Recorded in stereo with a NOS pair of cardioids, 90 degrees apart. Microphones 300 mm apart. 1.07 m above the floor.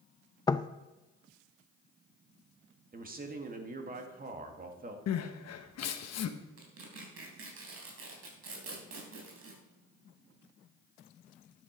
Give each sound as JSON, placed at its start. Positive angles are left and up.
{"t": 0.5, "sound": "knocking", "azimuth_deg": 15, "distance_m": 0.5}
{"t": 2.9, "sound": "a man speaking", "azimuth_deg": -30, "distance_m": 2.5}
{"t": 5.1, "sound": "crying", "azimuth_deg": 60, "distance_m": 1.2}
{"t": 6.6, "sound": "tearing paper", "azimuth_deg": -50, "distance_m": 3.5}